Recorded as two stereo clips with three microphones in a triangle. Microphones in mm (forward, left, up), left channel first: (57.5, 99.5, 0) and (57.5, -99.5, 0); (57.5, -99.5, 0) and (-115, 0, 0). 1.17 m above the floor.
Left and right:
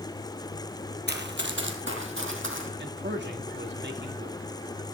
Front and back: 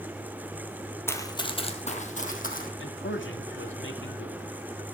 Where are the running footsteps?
105° right, 2 m; by 2.7 s 75° right, 4 m.